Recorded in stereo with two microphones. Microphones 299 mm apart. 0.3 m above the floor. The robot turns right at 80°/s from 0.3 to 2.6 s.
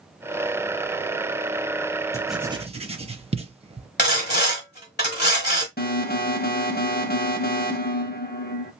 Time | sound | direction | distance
2.1 | writing | 10° left (ahead or behind) | 0.5 m
4.0 | sawing | 35° left (ahead or behind) | 1.3 m
5.8 | an alarm | 30° left (ahead or behind) | 0.7 m